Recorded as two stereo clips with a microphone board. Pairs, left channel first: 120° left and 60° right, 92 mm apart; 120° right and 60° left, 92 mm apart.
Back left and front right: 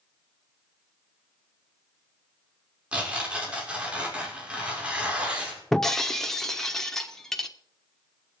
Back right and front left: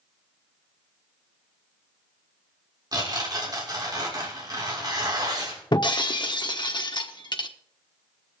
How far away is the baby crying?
No baby crying in this recording.